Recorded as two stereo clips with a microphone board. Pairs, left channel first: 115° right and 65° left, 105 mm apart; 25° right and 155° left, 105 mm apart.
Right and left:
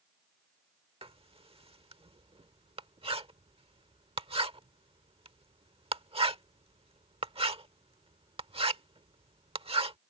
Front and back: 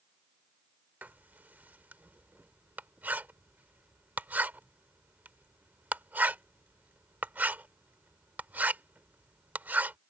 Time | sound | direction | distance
1.0 | writing | 85° left | ?